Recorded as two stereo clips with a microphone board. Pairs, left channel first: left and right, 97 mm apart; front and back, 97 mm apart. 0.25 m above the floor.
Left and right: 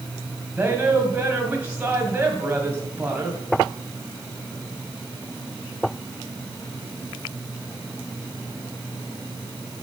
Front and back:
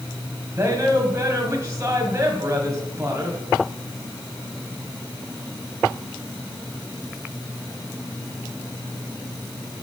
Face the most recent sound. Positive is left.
turn(degrees=-145)